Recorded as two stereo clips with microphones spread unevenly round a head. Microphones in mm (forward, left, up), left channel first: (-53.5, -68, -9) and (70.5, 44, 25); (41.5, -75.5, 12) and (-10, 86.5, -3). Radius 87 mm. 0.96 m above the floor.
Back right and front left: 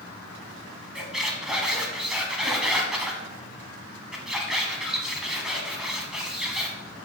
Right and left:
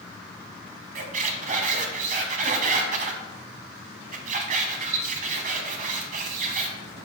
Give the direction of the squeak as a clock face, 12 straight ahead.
8 o'clock.